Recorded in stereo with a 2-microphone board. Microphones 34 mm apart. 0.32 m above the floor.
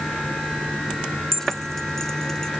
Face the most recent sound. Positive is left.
turn(degrees=15)  # may be behind; listen again after turning